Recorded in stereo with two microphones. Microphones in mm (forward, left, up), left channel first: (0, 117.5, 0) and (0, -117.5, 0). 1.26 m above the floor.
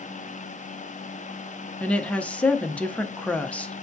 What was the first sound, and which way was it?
A woman speaking, 5° left (ahead or behind).